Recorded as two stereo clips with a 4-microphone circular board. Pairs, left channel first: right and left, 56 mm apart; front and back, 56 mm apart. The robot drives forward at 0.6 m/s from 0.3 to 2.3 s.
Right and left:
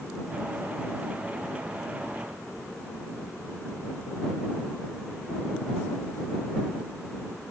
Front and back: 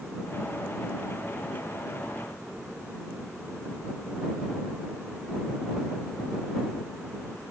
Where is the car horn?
I don't hear a car horn.